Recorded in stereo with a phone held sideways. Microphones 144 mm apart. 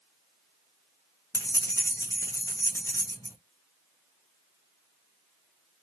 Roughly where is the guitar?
No guitar in this recording.